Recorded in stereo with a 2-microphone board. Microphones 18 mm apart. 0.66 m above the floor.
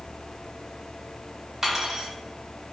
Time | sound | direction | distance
1.6 | cutlery clinking | 20° right (ahead or behind) | 0.7 m